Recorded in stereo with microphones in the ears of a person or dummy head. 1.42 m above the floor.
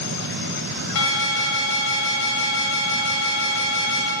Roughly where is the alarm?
Left.